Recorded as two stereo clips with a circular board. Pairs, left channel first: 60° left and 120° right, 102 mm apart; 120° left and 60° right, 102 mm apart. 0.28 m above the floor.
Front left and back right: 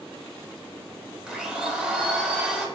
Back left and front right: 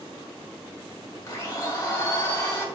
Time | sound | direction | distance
1.3 | a blender | 160° left | 0.6 m